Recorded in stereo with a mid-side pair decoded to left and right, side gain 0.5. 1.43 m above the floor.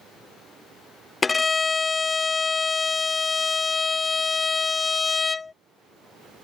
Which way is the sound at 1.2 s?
25° left.